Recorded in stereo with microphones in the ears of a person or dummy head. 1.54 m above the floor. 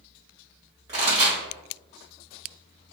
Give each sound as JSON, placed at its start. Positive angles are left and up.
{"t": 0.9, "sound": "a pop", "side_deg": -25, "distance_m": 1.5}